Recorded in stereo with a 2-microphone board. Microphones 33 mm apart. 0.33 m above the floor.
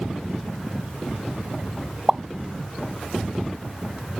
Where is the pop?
15° right (ahead or behind).